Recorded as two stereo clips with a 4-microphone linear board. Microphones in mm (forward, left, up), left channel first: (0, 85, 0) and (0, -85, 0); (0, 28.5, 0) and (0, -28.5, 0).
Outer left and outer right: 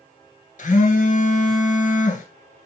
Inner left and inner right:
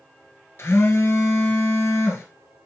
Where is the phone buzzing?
50° left (ahead or behind), 1.3 m.